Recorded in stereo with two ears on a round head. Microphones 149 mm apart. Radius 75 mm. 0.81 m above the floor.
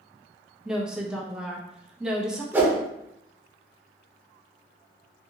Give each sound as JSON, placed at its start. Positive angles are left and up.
{"t": 0.7, "sound": "a woman speaking", "side_deg": -5, "distance_m": 0.5}
{"t": 2.5, "sound": "a whoosh", "side_deg": -10, "distance_m": 0.6}